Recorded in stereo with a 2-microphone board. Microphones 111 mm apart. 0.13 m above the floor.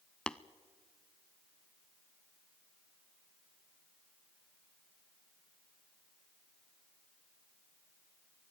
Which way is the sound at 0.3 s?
5° left (ahead or behind).